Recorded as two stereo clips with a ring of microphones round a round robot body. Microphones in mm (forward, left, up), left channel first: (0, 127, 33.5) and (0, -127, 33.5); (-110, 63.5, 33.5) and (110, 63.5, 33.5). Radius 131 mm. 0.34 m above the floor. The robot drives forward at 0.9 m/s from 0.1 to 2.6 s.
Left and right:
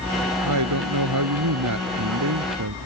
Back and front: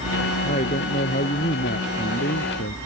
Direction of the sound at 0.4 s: 110° right.